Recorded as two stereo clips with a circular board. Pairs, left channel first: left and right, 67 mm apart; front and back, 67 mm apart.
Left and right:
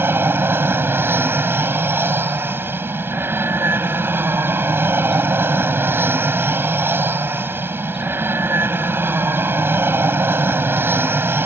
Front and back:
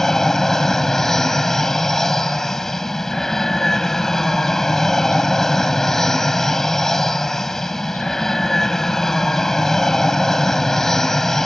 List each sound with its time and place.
0.0 s an aircraft: 80° right